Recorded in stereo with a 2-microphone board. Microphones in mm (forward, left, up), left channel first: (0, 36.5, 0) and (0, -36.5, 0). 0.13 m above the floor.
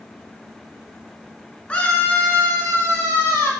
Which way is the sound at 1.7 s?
20° left (ahead or behind).